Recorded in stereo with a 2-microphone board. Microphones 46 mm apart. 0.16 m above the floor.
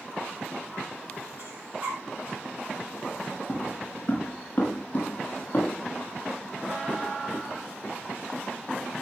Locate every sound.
1.4 s breathing: 40° right (ahead or behind), 5.5 m
3.5 s footsteps: 30° left (ahead or behind), 8.5 m; by 7.9 s 40° left (ahead or behind), 11 m